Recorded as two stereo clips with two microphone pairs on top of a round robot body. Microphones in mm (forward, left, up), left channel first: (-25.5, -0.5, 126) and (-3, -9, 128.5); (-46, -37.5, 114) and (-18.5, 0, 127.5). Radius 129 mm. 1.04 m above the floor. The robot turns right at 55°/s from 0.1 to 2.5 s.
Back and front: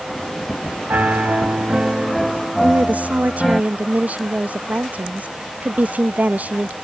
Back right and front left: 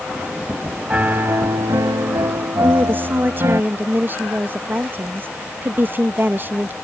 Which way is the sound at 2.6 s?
Straight ahead.